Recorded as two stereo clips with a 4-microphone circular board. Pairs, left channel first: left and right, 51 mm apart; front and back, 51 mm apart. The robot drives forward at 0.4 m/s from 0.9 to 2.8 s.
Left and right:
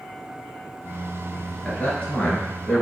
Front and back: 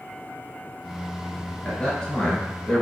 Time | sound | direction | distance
1.6 | a man speaking | 45° left | 1.5 m